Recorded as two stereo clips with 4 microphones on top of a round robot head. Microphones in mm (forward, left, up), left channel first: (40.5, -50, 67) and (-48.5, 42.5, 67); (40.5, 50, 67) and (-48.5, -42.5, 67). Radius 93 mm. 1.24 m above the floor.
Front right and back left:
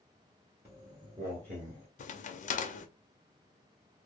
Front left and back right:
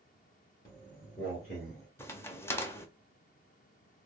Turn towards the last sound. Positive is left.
turn(degrees=-25)